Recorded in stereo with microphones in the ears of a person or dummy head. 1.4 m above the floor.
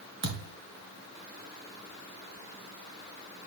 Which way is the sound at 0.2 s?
55° right (ahead or behind).